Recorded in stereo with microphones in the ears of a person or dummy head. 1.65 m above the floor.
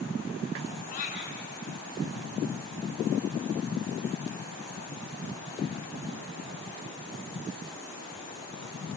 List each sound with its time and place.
0.9 s a cat meowing: 40° left (ahead or behind), 3.5 m